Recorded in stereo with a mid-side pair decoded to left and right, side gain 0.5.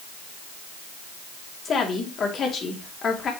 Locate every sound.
1.6 s a woman speaking: 45° left, 3.5 m